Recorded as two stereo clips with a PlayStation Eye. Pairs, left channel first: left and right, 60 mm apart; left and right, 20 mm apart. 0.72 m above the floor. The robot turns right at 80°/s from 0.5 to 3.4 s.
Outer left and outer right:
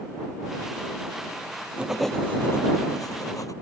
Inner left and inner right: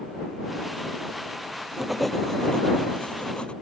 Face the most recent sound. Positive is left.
turn(degrees=110)